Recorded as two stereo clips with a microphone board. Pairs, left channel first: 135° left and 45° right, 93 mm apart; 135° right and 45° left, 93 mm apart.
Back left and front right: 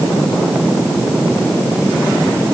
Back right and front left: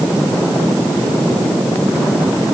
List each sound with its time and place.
Only background noise.